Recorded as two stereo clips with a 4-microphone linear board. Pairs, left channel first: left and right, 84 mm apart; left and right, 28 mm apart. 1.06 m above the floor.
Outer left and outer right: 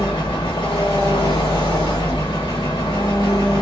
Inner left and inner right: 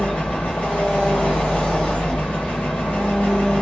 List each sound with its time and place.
0.0 s an engine running: 70° left (ahead or behind), 1.3 m